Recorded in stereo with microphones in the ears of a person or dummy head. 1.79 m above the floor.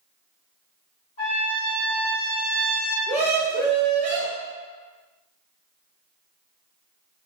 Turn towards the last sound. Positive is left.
turn(degrees=-5)  # may be behind; listen again after turning